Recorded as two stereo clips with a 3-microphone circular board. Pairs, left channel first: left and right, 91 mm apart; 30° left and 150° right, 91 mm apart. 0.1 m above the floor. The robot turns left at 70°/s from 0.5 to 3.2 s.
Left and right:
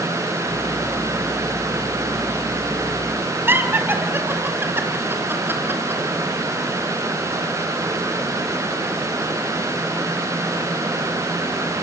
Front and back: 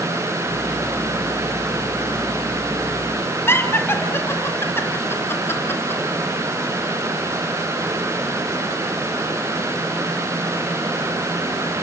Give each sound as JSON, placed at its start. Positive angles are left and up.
{"t": 3.5, "sound": "laughter", "azimuth_deg": -30, "distance_m": 3.0}